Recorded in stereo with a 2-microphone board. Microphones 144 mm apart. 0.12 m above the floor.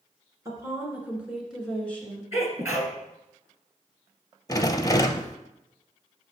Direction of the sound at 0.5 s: 25° right (ahead or behind).